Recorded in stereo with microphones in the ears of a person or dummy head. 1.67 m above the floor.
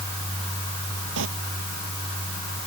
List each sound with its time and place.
1.2 s a sliding door: 70° right (ahead or behind)